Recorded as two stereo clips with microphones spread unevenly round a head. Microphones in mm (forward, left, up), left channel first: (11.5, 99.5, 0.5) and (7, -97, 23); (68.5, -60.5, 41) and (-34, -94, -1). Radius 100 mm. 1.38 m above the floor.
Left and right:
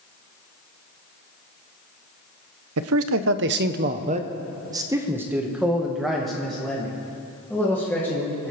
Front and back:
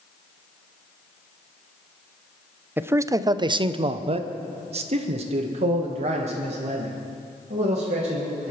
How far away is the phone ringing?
No phone ringing in this recording.